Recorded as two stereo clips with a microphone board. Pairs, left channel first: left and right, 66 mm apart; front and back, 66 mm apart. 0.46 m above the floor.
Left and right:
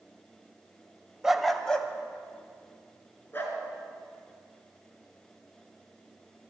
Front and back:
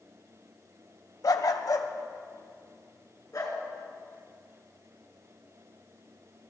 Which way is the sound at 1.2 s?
10° right.